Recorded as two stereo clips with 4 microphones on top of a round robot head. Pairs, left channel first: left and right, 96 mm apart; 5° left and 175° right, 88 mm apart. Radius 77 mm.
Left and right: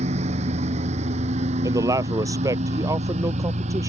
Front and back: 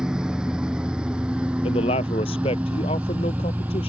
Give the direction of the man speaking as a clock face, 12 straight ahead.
1 o'clock.